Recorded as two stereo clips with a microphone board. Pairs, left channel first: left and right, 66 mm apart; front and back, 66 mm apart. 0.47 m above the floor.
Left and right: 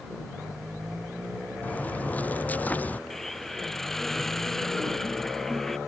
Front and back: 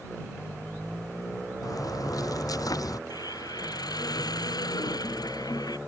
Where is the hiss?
5° left.